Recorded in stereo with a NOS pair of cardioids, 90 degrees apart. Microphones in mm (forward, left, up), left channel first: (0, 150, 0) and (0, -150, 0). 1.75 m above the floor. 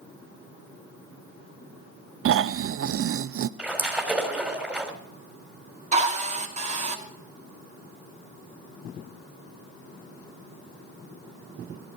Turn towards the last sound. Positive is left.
turn(degrees=-25)